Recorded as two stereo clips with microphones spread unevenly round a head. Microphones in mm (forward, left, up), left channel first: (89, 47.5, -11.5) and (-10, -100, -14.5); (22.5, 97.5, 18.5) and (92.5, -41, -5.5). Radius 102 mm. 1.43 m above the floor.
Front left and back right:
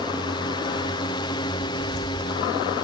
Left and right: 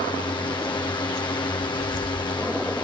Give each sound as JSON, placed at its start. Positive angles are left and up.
{"t": 0.0, "sound": "a drone", "azimuth_deg": 80}
{"t": 1.6, "sound": "footsteps", "azimuth_deg": 95}